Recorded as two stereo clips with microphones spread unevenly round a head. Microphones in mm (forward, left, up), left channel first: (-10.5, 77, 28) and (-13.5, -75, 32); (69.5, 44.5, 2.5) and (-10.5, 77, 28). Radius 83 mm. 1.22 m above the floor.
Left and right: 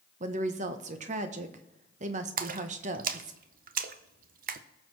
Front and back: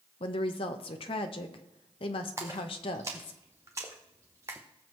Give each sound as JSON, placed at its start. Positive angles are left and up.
{"t": 0.2, "sound": "a woman speaking", "azimuth_deg": -45, "distance_m": 0.9}
{"t": 2.4, "sound": "a splash", "azimuth_deg": -125, "distance_m": 0.7}